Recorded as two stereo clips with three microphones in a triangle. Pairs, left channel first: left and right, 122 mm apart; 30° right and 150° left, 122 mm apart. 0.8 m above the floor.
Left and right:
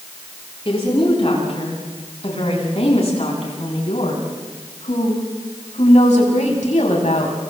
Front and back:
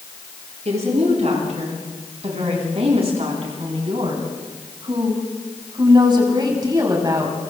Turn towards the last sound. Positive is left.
turn(degrees=90)